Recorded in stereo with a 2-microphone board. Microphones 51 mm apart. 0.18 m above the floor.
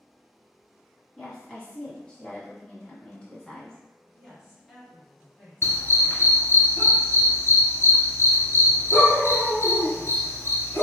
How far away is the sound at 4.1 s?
About 1.4 m.